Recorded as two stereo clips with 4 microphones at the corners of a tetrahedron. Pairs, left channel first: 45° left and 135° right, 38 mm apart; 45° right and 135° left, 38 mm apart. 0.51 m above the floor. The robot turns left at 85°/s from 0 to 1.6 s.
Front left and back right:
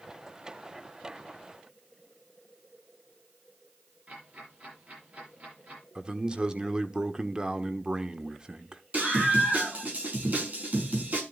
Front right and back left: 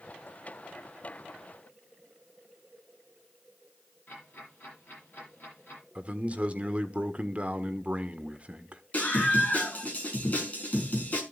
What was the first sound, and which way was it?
Ticking, 85° right.